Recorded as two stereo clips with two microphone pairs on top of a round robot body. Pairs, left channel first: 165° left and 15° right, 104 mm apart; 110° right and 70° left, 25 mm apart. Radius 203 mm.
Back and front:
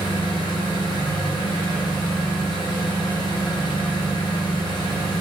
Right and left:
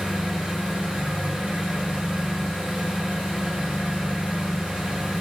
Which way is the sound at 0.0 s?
120° left.